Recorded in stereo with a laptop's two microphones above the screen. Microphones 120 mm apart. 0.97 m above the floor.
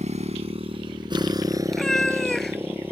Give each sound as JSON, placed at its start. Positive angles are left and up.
{"t": 0.0, "sound": "a motorcycle", "side_deg": -80}
{"t": 1.7, "sound": "a cat meowing", "side_deg": 0}